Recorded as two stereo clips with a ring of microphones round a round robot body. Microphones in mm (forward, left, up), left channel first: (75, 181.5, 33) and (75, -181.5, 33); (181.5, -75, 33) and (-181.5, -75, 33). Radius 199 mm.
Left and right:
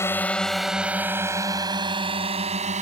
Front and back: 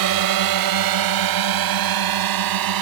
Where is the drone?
170° left; by 2.8 s 160° right.